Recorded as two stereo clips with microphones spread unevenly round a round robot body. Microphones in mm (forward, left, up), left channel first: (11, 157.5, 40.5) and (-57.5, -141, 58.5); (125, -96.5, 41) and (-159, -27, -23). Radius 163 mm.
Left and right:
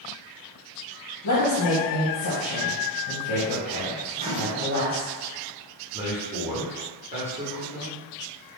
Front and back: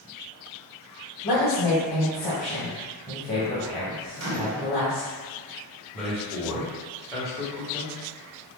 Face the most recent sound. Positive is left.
turn(degrees=-140)